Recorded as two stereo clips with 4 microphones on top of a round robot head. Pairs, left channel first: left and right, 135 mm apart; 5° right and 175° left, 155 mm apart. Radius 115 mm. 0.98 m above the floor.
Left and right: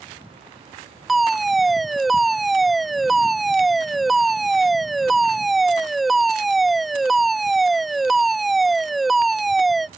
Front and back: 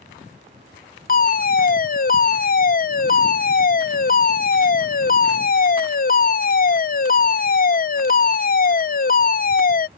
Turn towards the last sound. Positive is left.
turn(degrees=0)